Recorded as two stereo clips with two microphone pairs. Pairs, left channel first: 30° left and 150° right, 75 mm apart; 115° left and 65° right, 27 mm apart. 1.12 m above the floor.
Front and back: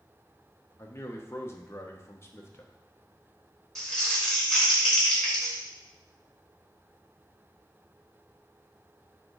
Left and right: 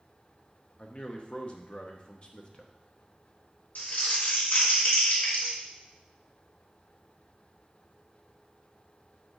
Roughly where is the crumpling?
Left.